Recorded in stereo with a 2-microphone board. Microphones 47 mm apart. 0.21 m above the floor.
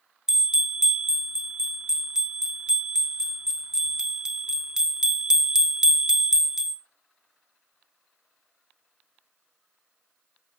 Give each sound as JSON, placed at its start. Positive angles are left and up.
{"t": 0.3, "sound": "a bell", "side_deg": -15, "distance_m": 0.5}